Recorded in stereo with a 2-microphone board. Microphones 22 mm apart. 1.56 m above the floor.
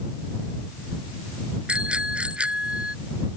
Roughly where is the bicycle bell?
Right.